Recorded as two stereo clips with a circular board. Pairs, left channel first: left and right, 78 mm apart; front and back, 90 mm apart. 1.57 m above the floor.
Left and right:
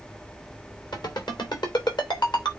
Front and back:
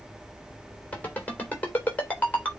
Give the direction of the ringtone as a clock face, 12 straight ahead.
10 o'clock.